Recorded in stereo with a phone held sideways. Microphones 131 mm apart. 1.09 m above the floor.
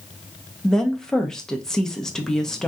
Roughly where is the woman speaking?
Centre.